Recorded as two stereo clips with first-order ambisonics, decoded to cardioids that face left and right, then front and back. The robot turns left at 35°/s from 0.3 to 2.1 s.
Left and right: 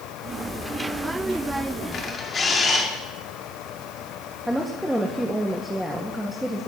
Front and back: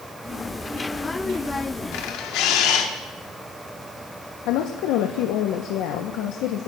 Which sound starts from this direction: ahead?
A woman speaking, at 4.5 s.